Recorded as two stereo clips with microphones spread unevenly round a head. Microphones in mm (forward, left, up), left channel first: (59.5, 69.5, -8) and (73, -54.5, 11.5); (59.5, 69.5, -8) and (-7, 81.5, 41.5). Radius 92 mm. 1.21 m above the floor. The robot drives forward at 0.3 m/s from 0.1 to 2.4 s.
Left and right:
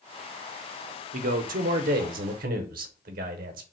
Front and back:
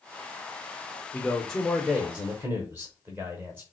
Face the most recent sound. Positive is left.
turn(degrees=-105)